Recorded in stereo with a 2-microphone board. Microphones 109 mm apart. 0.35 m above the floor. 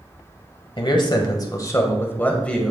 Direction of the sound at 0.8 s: 50° left (ahead or behind).